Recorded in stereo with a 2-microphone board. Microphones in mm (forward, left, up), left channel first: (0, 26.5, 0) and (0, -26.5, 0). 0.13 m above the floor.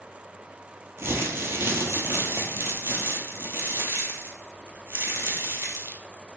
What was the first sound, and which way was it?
Crumpling, 50° right (ahead or behind).